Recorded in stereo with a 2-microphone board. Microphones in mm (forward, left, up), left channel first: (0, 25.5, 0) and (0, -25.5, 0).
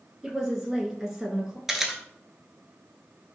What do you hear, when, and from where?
0.2 s a woman speaking: 5° right (ahead or behind), 1.6 m
1.7 s a camera shutter: 5° right (ahead or behind), 0.8 m